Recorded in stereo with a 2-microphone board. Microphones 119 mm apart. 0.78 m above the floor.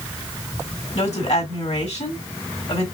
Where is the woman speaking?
70° left (ahead or behind), 3 m.